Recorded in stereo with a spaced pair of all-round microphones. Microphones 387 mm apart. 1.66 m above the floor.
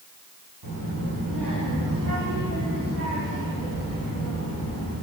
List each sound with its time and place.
0.6 s a child speaking: 70° right (ahead or behind), 3.5 m; by 4.9 s 45° right (ahead or behind), 6 m